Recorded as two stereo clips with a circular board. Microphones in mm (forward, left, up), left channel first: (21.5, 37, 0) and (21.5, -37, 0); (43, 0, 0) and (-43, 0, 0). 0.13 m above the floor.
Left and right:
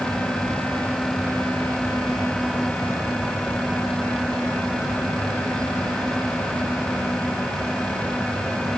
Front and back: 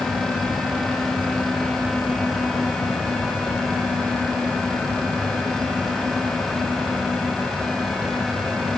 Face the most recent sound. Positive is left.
No sound to turn to.